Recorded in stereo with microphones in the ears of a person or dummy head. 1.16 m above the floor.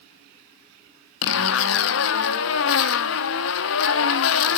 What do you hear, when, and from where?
1.2 s a zipper: 65° left (ahead or behind), 1.0 m